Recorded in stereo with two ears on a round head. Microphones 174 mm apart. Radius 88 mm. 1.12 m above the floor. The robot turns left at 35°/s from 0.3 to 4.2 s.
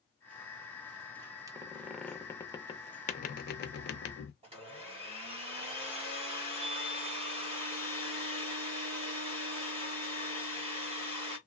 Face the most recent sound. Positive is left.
turn(degrees=-30)  # may be behind; listen again after turning